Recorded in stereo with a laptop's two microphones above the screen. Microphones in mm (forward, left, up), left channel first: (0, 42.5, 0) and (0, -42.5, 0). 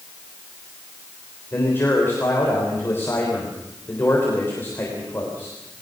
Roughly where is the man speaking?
Left.